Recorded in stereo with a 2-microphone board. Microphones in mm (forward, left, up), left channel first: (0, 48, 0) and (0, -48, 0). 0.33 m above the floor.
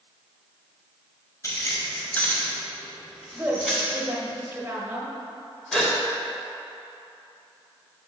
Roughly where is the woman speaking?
Right.